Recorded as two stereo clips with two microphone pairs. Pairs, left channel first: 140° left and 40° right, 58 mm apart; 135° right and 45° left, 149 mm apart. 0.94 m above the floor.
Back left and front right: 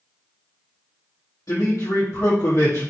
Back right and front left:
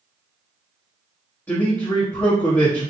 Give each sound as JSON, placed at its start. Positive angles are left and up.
{"t": 1.5, "sound": "a man speaking", "azimuth_deg": 150, "distance_m": 1.3}